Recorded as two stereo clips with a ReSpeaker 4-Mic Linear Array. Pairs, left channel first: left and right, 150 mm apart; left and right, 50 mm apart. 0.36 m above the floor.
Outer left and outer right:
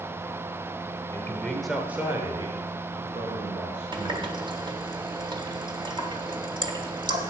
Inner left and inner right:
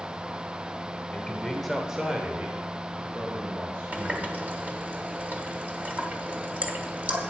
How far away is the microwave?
I don't hear a microwave.